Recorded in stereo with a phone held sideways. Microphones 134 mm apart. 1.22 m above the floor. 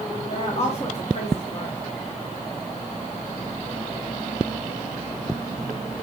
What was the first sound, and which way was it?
A woman speaking, 50° left (ahead or behind).